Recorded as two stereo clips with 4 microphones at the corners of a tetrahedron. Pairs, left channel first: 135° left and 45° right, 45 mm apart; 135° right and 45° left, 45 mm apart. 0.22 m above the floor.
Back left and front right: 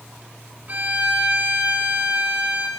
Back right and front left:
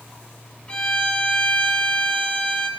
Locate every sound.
0.7 s a violin: 80° right, 1.6 m